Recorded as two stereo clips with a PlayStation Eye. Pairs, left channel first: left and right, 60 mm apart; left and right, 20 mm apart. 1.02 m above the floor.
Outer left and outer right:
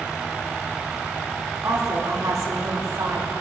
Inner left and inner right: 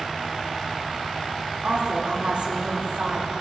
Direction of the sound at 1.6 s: 70° right (ahead or behind).